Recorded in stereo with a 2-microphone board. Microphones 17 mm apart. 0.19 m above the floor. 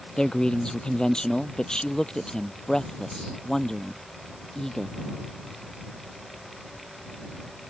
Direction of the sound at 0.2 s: 55° left (ahead or behind).